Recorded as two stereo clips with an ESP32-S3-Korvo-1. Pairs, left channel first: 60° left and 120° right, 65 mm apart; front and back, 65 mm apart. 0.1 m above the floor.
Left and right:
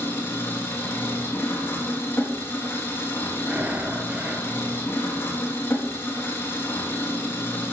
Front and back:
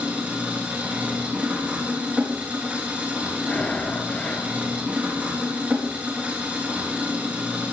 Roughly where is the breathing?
Ahead right.